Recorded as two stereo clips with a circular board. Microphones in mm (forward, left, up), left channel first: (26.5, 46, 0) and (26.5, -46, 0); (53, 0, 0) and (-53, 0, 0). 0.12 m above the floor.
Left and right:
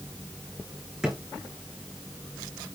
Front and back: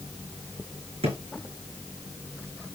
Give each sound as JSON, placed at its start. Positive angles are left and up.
{"t": 1.0, "sound": "a drawer", "azimuth_deg": -175, "distance_m": 4.0}